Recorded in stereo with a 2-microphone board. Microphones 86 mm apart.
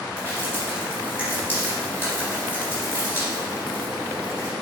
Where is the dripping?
25° left (ahead or behind), 2.5 m.